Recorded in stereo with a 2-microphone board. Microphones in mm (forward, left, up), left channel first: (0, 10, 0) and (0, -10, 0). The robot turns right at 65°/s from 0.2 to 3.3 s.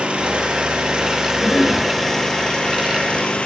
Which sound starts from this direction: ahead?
A cough, at 1.4 s.